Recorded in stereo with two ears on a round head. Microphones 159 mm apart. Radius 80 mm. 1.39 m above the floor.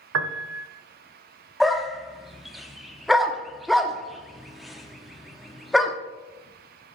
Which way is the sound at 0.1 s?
80° right.